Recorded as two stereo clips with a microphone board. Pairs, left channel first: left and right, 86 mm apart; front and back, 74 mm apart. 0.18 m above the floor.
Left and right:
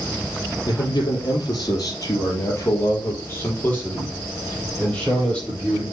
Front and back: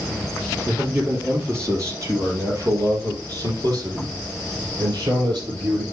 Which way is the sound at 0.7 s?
120° left.